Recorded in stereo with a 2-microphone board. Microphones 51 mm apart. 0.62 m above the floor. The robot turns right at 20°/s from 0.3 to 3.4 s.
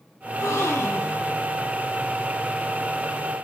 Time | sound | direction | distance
0.3 | a gasp | 60° left (ahead or behind) | 0.8 m